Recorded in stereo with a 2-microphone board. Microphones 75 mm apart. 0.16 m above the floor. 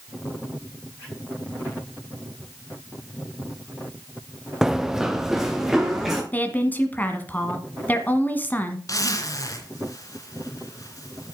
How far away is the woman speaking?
About 1.5 m.